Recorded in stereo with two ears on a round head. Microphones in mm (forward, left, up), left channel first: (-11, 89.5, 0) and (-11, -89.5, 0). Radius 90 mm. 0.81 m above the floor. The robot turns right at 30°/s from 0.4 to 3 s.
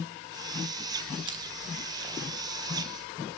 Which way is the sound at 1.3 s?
20° right (ahead or behind).